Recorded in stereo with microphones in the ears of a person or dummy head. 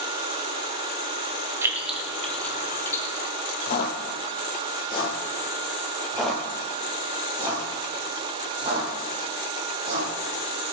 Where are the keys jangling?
15° right (ahead or behind), 1.9 m; by 3.0 s 20° left (ahead or behind), 3.5 m.